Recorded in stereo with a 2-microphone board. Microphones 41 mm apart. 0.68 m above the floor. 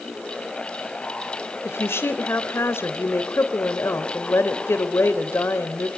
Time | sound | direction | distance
1.6 | a woman speaking | 75° left (ahead or behind) | 3.5 m